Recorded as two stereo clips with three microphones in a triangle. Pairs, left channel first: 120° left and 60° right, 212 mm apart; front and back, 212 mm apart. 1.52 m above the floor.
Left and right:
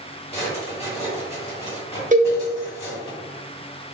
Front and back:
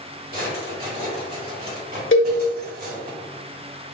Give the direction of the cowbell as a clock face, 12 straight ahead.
12 o'clock.